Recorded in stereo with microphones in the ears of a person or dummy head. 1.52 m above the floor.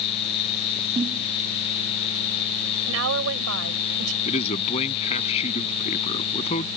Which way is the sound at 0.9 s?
25° right (ahead or behind).